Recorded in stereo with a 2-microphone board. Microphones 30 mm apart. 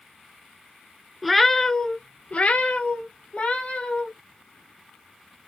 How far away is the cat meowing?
About 0.7 m.